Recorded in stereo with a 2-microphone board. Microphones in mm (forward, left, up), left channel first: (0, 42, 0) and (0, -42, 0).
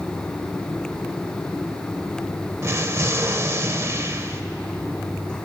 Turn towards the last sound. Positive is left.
turn(degrees=-35)  # may be behind; listen again after turning